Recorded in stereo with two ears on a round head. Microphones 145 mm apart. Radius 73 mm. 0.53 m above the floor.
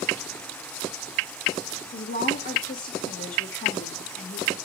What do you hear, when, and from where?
1.9 s a woman speaking: 60° left (ahead or behind), 1.5 m